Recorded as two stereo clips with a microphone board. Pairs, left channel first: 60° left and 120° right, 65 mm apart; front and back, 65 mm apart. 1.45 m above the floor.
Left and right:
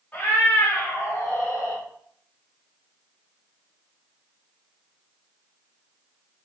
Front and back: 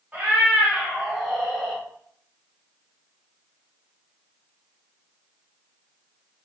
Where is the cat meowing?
120° left, 2.5 m; by 1.8 s 70° left, 2 m.